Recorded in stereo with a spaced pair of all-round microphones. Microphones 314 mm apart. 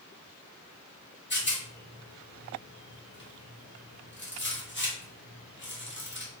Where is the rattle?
35° left (ahead or behind), 1.3 m.